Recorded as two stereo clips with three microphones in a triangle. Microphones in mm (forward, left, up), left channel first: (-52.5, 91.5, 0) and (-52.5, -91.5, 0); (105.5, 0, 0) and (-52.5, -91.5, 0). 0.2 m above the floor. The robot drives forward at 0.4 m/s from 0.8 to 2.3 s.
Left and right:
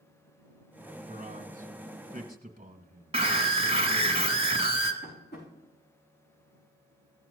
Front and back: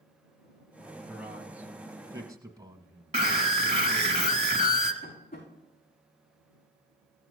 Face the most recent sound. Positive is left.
turn(degrees=65)